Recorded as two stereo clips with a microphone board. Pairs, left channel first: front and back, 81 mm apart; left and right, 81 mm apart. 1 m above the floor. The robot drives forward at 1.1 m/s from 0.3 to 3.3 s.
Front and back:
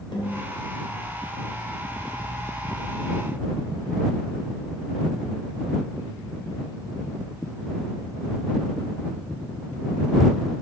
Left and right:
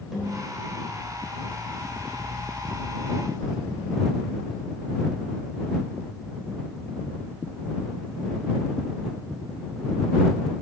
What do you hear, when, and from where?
0.1 s a snare drum: straight ahead, 4 m